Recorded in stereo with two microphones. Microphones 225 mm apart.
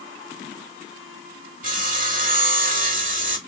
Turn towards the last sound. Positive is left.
turn(degrees=-35)  # may be behind; listen again after turning